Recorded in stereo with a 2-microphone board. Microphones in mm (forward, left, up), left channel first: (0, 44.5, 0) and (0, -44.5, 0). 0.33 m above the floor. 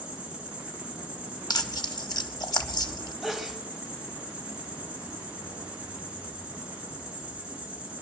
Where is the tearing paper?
50° left (ahead or behind), 1.1 m.